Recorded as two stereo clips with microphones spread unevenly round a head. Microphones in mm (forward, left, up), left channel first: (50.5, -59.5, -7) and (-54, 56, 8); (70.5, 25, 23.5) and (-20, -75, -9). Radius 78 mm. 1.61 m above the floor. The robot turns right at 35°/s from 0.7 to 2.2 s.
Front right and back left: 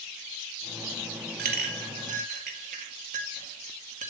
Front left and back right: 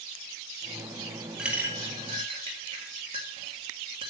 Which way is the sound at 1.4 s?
135° left.